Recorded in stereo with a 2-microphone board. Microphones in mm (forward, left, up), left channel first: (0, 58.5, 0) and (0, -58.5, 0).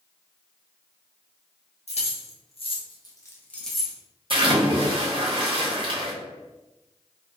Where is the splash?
50° right (ahead or behind), 0.8 m.